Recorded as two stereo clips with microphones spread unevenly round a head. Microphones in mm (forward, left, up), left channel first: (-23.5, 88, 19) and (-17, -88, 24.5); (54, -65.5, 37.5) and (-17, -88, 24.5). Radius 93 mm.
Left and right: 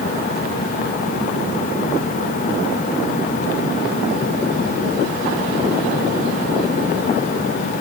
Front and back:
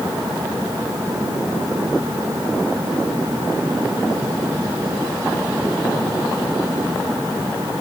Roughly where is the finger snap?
No finger snap in this recording.